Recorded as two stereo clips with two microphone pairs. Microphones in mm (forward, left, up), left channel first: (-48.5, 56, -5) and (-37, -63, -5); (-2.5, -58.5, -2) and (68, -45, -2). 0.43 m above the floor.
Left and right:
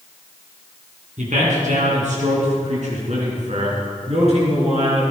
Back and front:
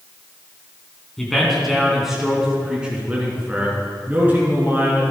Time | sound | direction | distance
1.2 | a man speaking | 85° right | 3.5 m